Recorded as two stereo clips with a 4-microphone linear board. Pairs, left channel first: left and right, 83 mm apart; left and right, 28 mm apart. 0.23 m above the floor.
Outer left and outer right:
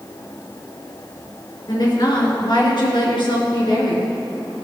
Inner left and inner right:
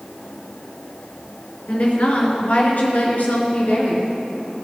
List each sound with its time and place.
1.7 s a woman speaking: 50° left (ahead or behind), 3.5 m; by 4.1 s 65° left (ahead or behind), 3.5 m